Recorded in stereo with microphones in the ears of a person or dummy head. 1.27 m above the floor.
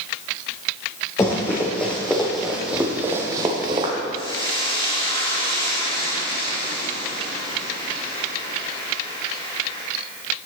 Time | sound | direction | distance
1.2 | running footsteps | 20° left (ahead or behind) | 3.5 m
4.2 | frying | 25° left (ahead or behind) | 2.5 m